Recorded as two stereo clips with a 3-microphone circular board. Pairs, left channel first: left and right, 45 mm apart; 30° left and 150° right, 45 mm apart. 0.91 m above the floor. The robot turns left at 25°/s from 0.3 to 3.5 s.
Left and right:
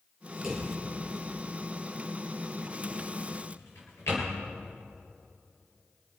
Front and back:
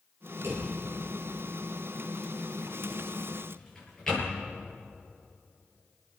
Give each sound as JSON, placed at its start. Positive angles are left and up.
{"t": 0.4, "sound": "a drawer", "azimuth_deg": -170, "distance_m": 6.5}